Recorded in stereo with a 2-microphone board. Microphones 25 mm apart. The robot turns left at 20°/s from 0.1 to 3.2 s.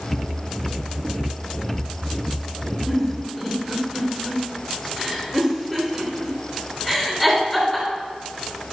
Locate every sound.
2.9 s a giggle: 10° right (ahead or behind), 2.5 m; by 7.9 s 5° right (ahead or behind), 2.5 m